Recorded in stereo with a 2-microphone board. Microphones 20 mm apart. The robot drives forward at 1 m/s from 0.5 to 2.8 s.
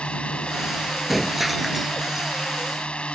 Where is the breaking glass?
5° right (ahead or behind); by 2.3 s 10° right (ahead or behind).